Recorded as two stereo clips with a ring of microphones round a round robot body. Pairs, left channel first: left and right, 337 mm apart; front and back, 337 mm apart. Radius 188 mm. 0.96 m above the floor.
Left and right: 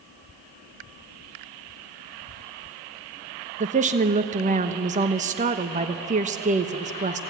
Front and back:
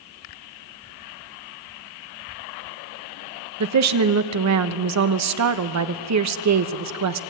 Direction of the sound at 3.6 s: 155° right.